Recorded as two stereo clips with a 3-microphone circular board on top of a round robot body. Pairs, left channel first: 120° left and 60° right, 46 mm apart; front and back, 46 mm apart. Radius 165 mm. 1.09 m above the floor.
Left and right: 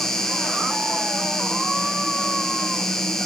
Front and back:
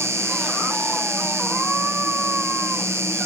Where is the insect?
160° right, 3.5 m.